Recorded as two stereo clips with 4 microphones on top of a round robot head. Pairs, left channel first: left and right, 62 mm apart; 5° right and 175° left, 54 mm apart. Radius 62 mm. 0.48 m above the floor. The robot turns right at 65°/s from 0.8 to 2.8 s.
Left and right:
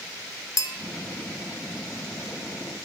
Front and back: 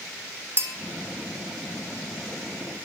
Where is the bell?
130° left, 0.8 m.